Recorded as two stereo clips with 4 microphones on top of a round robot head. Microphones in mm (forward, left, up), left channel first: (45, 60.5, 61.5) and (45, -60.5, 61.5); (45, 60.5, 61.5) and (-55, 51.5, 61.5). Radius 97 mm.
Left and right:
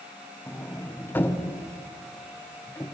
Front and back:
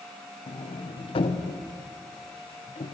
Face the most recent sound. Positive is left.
turn(degrees=20)